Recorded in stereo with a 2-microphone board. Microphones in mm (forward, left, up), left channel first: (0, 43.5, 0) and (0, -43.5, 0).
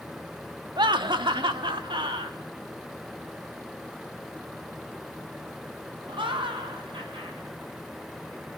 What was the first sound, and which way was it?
Laughter, 65° right (ahead or behind).